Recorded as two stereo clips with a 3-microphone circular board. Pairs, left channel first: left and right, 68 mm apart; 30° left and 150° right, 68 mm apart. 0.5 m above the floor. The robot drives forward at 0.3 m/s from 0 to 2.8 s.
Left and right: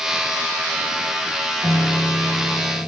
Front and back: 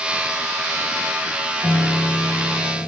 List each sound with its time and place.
1.6 s a piano: 30° left, 4 m; by 2.9 s 35° left, 4 m